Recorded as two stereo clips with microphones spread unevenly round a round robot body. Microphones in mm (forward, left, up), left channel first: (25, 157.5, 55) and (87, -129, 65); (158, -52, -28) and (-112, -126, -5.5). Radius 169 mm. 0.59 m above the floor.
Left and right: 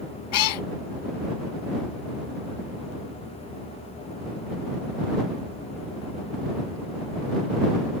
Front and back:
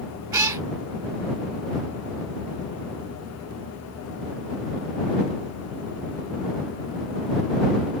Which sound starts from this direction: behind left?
A cat meowing, at 0.3 s.